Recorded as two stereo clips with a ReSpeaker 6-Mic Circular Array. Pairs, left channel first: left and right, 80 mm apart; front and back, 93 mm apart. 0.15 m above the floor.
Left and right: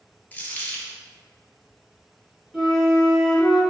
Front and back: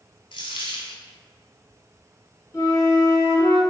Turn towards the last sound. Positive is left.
turn(degrees=0)